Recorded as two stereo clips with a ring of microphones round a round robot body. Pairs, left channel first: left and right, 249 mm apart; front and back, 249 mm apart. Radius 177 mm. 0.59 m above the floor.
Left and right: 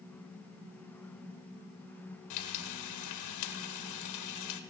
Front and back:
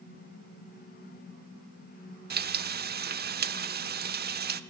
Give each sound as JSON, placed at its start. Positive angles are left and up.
{"t": 2.3, "sound": "frying", "azimuth_deg": 125, "distance_m": 0.7}